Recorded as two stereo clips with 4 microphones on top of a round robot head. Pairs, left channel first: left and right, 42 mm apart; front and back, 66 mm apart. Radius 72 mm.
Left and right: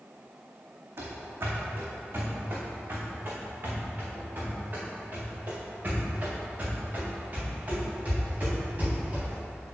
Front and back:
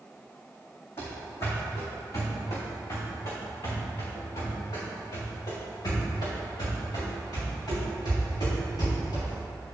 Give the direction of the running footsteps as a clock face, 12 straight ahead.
2 o'clock.